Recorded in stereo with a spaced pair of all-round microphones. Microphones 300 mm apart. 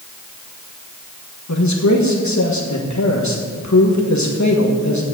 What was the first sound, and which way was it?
A man speaking, 70° left (ahead or behind).